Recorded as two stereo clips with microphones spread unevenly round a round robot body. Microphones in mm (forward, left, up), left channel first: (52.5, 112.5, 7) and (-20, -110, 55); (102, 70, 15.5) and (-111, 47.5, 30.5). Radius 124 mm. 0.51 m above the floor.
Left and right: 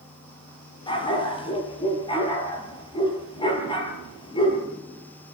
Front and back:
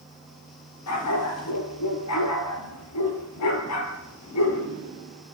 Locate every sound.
0.9 s a dog barking: straight ahead, 4.5 m